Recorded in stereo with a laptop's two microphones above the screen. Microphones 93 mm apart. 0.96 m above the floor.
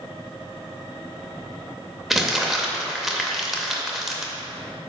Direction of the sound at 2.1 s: Centre (ahead or behind).